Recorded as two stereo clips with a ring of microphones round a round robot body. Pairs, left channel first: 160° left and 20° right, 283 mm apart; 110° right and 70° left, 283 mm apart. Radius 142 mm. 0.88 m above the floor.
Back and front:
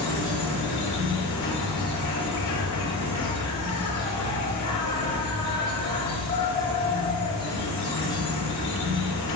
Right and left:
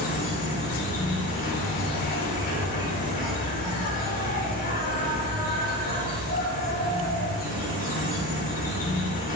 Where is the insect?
175° right, 5.5 m.